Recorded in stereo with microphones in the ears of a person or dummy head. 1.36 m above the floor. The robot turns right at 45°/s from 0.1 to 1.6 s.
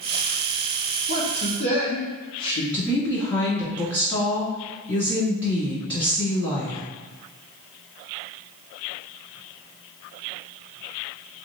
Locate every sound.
1.1 s a man speaking: 70° left (ahead or behind), 1.7 m; by 2.6 s 80° left, 1.7 m
2.7 s a woman speaking: 25° left (ahead or behind), 2 m